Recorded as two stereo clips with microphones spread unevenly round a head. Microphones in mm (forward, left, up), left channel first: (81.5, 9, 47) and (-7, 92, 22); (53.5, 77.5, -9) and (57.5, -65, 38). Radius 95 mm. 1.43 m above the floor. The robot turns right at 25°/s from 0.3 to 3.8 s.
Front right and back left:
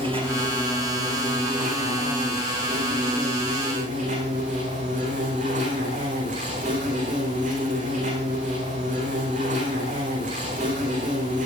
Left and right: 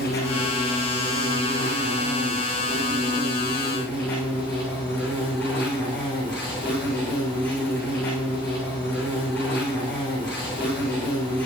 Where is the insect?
90° left, 9 m; by 11.5 s 175° left, 9 m.